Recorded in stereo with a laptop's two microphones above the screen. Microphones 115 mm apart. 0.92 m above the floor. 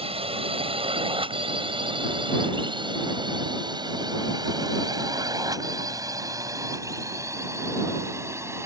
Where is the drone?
55° right (ahead or behind); by 8.7 s 25° right (ahead or behind).